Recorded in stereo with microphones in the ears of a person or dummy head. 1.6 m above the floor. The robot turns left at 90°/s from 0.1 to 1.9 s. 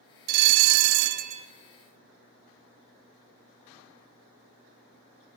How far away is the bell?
About 0.6 m.